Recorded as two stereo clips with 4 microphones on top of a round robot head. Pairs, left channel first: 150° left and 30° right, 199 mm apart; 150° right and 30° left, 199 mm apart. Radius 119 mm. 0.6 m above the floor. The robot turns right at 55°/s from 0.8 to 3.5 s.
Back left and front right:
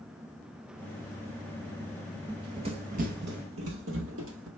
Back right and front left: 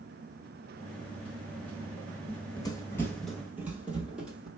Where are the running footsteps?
85° right, 0.6 m; by 4.5 s 55° right, 1.5 m.